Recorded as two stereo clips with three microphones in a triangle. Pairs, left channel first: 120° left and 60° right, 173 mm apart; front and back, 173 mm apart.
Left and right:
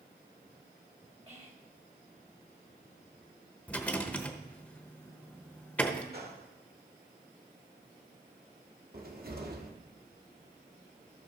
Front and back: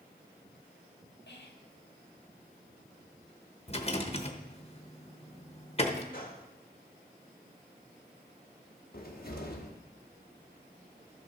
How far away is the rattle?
About 1.0 m.